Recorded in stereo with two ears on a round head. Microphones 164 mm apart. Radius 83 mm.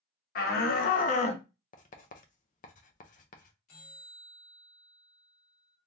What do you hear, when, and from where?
0.3 s a shout: 55° left (ahead or behind), 1.0 m; by 1.4 s 25° left (ahead or behind), 0.5 m
1.7 s writing: 45° left (ahead or behind), 0.5 m
3.7 s a bell: 40° left (ahead or behind), 1.3 m